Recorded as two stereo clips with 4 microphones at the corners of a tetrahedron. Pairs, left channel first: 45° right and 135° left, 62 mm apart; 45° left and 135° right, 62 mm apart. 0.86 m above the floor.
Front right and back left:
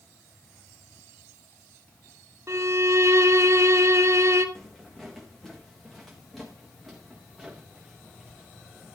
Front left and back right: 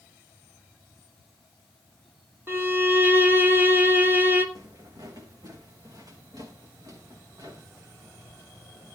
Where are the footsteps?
130° right, 4 m; by 8.9 s 135° right, 6.5 m.